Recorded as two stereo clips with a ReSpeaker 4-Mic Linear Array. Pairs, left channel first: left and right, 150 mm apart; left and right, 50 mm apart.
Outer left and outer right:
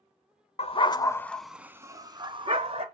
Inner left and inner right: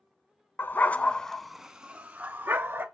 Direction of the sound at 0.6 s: 45° left (ahead or behind).